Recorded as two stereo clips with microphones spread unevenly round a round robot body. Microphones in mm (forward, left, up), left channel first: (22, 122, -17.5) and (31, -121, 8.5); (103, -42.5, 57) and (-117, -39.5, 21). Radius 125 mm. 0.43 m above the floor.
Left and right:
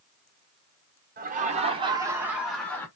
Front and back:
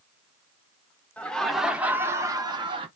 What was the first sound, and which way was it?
Laughter, 95° right.